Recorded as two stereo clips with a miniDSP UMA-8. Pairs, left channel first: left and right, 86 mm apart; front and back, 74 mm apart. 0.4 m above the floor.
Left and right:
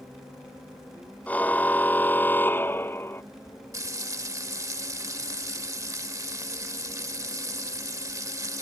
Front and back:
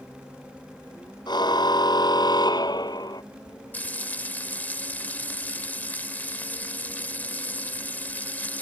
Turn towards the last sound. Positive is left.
turn(degrees=-60)